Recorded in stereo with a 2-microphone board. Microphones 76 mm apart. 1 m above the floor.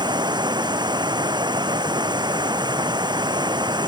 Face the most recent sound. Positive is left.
turn(degrees=-75)  # may be behind; listen again after turning